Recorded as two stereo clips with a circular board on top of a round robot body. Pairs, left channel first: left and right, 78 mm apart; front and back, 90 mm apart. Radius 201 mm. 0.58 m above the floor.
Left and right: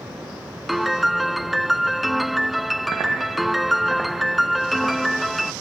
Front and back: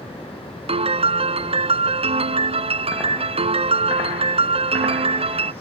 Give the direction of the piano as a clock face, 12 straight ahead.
6 o'clock.